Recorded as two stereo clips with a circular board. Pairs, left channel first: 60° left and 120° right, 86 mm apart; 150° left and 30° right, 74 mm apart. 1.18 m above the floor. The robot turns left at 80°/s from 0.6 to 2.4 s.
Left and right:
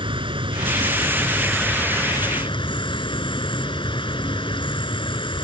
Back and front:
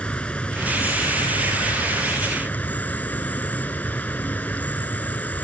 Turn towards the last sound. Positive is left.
turn(degrees=80)